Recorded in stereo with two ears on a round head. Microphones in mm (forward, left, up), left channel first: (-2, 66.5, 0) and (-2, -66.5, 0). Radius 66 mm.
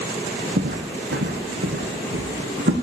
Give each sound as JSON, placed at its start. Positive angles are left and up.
{"t": 0.6, "sound": "footsteps", "side_deg": -70, "distance_m": 1.8}